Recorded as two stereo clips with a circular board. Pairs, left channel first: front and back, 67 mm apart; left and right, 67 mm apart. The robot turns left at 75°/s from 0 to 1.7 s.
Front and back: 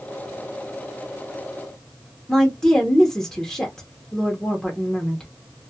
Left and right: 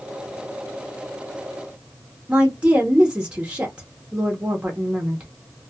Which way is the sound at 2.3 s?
65° right.